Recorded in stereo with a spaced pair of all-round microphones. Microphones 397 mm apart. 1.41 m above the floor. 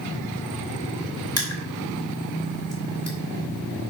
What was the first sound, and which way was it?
Crushing, 40° left (ahead or behind).